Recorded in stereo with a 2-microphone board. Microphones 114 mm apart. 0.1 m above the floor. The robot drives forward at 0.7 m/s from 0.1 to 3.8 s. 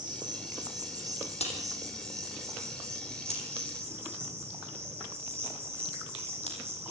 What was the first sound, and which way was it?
An insect, 40° right (ahead or behind).